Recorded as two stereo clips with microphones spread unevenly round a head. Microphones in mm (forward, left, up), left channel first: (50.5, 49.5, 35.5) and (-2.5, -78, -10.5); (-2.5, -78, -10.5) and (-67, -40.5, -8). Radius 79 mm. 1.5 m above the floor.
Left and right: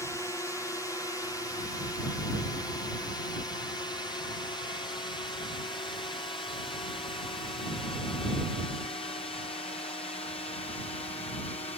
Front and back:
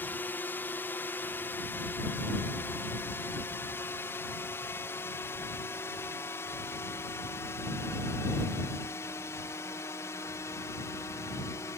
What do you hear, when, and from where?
0.0 s a drone: 15° right; by 11.8 s 15° left